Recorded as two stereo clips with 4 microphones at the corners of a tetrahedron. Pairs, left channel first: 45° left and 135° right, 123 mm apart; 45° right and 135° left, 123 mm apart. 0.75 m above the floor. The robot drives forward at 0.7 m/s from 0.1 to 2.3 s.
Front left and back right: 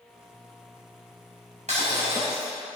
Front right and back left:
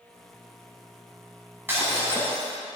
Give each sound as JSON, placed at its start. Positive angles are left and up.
{"t": 1.7, "sound": "breaking glass", "azimuth_deg": -155, "distance_m": 4.0}